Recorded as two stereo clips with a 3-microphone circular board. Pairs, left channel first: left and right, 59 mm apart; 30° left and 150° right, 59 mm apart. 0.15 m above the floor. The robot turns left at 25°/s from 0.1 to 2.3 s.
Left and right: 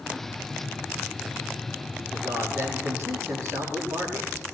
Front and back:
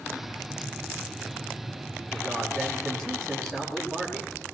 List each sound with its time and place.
2.1 s a man speaking: 50° right, 7 m; by 4.3 s 55° right, 7 m